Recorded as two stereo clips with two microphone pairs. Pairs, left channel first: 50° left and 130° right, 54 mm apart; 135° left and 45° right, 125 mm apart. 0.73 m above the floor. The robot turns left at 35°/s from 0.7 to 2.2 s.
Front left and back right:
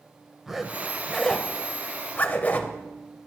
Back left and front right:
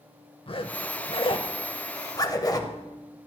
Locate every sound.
0.5 s a zipper: 145° left, 0.6 m; by 2.8 s 90° left, 0.6 m